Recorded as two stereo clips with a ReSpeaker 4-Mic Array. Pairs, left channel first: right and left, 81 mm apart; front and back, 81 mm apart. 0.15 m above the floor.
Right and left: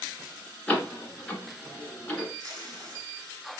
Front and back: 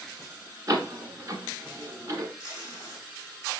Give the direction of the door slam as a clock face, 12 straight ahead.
5 o'clock.